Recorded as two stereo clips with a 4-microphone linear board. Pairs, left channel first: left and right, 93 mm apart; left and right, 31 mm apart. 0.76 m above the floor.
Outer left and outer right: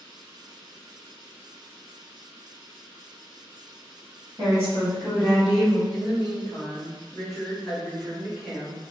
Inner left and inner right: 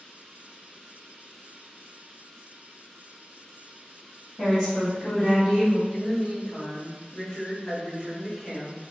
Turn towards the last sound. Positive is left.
turn(degrees=-5)  # may be behind; listen again after turning